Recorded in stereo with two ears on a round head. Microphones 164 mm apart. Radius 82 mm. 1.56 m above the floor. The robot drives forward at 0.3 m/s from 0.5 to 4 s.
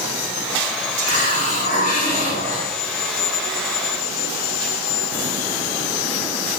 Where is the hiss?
50° left (ahead or behind), 2 m; by 2.7 s 45° left (ahead or behind), 2.5 m.